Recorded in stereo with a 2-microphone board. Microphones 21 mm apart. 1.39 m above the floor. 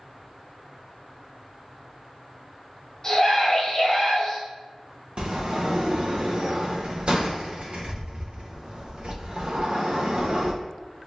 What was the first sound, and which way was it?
A scream, 35° left (ahead or behind).